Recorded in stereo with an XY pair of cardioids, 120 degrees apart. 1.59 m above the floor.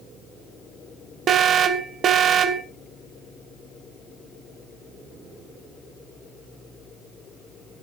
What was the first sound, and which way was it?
An alarm, 50° right.